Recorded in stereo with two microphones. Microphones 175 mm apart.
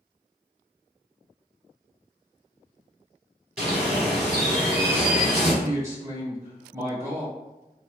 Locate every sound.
3.6 s a bird: 5° right (ahead or behind), 1.7 m
5.6 s a man speaking: 15° right (ahead or behind), 1.1 m